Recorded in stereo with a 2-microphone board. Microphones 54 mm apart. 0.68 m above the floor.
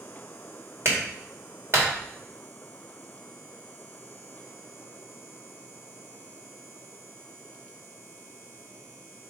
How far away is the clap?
About 2 m.